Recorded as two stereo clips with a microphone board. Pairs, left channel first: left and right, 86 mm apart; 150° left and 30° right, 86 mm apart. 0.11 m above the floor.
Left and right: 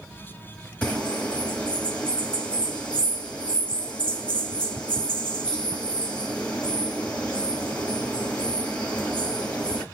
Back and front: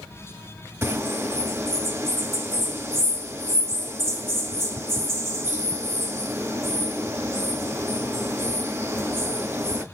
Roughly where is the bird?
Ahead.